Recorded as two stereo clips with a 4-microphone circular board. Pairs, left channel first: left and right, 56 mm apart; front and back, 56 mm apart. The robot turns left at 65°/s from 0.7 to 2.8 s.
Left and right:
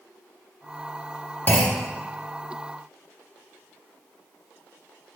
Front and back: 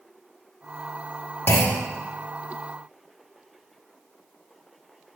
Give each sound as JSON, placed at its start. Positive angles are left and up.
{"t": 1.5, "sound": "a clunk", "azimuth_deg": 40, "distance_m": 0.6}